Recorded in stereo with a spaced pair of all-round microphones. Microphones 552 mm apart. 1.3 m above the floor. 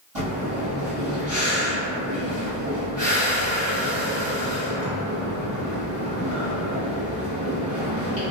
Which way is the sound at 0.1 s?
55° right (ahead or behind).